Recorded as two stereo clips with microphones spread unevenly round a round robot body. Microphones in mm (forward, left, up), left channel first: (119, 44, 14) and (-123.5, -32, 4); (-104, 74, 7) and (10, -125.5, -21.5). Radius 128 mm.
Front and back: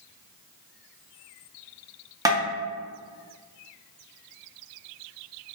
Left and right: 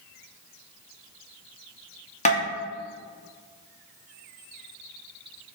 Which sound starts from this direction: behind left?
Tapping, at 2.2 s.